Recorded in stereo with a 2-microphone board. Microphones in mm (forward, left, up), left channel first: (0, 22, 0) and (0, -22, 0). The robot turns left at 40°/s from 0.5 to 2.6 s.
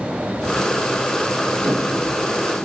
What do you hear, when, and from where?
1.6 s a whoosh: 50° right (ahead or behind), 1.2 m; by 1.9 s 60° right (ahead or behind), 1.2 m